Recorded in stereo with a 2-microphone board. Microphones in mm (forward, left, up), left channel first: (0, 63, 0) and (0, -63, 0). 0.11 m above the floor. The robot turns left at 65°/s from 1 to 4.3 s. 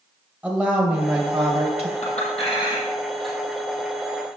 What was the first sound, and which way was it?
A woman speaking, 15° right.